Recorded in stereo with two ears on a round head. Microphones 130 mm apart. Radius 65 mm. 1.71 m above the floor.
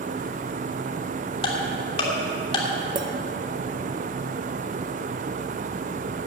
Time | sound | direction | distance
1.4 | ticking | 40° left (ahead or behind) | 2.5 m
3.0 | a clink | 30° right (ahead or behind) | 0.9 m